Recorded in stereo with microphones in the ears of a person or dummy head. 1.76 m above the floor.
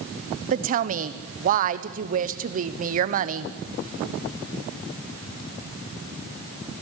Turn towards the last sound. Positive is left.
turn(degrees=-40)  # may be behind; listen again after turning